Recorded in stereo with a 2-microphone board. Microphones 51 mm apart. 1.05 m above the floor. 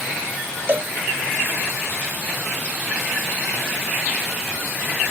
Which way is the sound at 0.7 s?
45° right (ahead or behind).